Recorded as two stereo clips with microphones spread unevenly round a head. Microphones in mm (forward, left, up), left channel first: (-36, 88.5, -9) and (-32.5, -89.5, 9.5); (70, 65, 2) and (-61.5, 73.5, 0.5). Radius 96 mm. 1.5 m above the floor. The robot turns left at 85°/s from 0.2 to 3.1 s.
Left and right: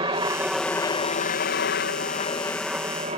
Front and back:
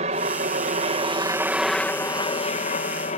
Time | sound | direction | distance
0.0 | a helicopter | 150° right | ?